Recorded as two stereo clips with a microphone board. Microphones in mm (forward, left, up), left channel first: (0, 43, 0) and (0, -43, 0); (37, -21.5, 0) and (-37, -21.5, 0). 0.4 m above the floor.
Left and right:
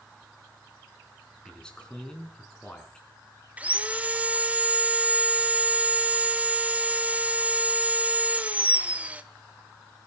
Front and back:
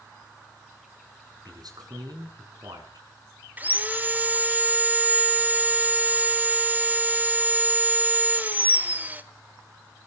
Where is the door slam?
I don't hear a door slam.